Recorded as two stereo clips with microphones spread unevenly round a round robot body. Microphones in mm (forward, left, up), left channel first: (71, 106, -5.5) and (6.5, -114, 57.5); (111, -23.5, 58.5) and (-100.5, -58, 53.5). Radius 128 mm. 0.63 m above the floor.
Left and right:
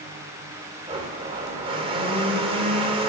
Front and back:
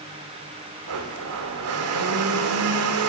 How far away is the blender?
About 1.0 m.